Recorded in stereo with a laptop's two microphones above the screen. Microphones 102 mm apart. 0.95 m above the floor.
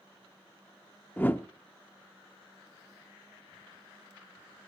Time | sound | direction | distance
1.2 | a whoosh | 20° left (ahead or behind) | 0.5 m